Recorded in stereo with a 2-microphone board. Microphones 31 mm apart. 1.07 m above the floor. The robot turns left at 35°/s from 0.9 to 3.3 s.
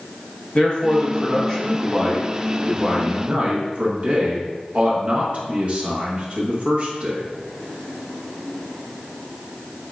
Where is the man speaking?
40° left, 1.1 m; by 7.2 s 45° right, 1.1 m.